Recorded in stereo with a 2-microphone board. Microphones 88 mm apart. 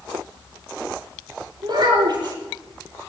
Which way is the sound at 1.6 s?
65° right (ahead or behind).